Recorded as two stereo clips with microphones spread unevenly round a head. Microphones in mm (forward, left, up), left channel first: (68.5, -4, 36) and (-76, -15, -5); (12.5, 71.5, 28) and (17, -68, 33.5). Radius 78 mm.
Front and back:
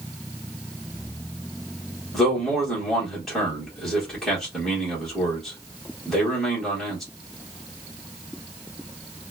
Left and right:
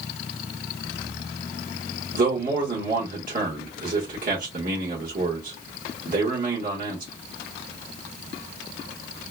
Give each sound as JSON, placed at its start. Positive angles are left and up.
{"t": 2.1, "sound": "a man speaking", "azimuth_deg": -90, "distance_m": 1.3}